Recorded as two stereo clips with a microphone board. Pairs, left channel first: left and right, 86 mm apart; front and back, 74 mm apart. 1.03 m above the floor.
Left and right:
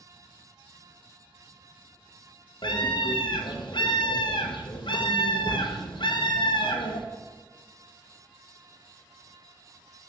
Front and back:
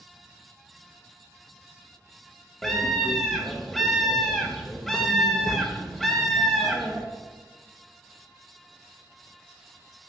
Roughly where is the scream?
Left.